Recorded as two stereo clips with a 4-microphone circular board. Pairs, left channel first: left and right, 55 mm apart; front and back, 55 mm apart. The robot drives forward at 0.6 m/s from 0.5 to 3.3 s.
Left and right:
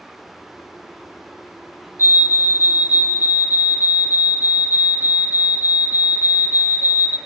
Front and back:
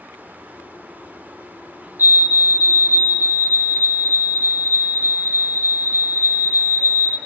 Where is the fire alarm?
135° right, 1.9 m; by 7.2 s 145° right, 2.5 m.